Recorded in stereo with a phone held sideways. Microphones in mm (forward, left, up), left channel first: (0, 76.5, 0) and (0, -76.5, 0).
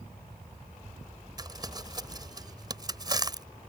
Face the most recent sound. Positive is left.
turn(degrees=-25)  # may be behind; listen again after turning